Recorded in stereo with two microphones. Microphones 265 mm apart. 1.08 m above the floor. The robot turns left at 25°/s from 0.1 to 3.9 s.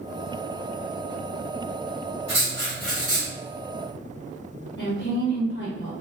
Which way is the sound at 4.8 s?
40° left (ahead or behind).